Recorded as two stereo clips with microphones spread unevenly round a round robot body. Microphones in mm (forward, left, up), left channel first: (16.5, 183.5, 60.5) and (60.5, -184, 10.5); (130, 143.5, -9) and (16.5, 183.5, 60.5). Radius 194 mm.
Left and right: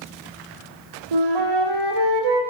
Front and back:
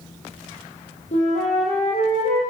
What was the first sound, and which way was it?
A flute, 70° right.